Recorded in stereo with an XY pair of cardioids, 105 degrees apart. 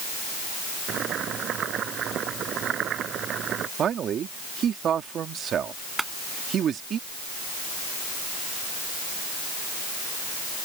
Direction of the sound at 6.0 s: 25° right.